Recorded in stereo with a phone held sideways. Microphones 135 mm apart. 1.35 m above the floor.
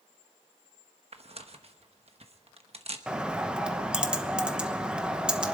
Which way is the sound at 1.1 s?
50° right (ahead or behind).